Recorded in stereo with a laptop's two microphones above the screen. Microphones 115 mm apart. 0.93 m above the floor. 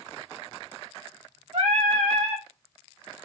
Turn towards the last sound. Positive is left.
turn(degrees=-70)  # may be behind; listen again after turning